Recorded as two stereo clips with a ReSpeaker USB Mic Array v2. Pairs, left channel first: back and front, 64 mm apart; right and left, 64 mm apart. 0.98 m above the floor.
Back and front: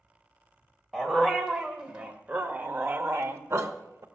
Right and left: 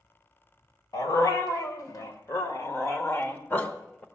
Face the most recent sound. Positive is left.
turn(degrees=-25)